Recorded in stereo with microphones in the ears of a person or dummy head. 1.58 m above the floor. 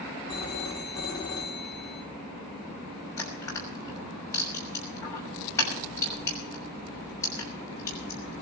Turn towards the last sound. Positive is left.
turn(degrees=15)  # may be behind; listen again after turning